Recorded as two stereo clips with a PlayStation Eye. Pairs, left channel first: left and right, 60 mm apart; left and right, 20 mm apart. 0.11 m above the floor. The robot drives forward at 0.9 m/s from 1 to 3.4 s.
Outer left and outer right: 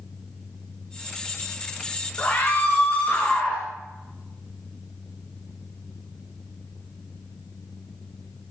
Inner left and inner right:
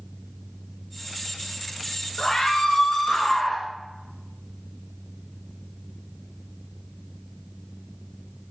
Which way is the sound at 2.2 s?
35° left (ahead or behind).